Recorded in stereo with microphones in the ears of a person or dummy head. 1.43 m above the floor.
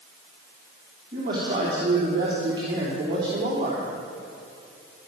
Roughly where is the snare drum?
I don't hear a snare drum.